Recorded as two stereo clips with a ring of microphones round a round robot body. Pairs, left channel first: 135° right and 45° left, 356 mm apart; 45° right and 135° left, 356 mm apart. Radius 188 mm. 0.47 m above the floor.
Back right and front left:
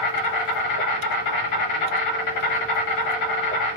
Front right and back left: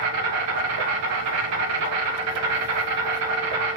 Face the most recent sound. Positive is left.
turn(degrees=-175)